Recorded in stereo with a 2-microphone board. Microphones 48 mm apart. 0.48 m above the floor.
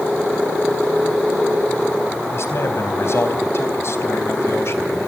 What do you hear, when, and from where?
2.3 s a man speaking: 65° left (ahead or behind), 3.5 m